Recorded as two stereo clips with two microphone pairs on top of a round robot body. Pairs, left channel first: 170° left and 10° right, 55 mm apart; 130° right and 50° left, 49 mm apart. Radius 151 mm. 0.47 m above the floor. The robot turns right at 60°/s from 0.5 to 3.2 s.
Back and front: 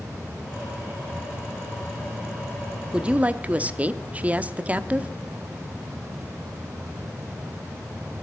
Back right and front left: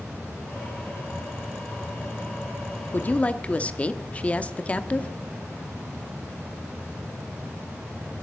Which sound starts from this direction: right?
A woman speaking, at 2.9 s.